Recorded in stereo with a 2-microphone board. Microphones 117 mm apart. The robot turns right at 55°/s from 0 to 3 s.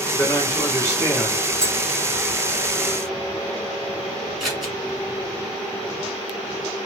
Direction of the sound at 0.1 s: 25° left (ahead or behind).